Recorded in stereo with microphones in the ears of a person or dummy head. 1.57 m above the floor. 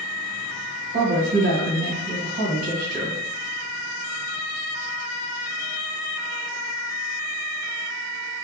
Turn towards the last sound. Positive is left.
turn(degrees=-50)  # may be behind; listen again after turning